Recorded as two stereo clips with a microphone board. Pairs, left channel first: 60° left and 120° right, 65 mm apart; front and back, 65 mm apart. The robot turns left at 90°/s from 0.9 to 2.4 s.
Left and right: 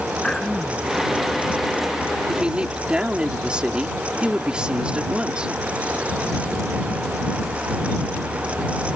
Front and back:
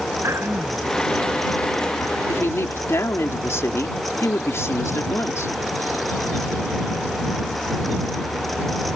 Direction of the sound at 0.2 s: 140° left.